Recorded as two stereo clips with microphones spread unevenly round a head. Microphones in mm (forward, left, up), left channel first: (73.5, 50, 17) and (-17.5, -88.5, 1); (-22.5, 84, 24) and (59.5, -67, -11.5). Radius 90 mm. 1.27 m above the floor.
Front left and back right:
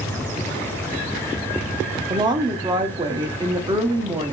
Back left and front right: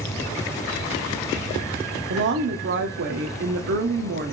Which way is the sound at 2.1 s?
60° right.